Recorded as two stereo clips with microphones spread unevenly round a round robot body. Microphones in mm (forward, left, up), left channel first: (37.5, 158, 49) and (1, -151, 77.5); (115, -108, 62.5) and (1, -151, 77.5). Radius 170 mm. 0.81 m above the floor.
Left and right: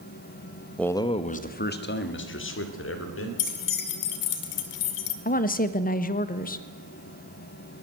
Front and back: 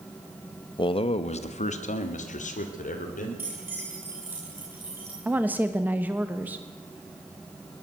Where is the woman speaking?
120° left, 1.1 m.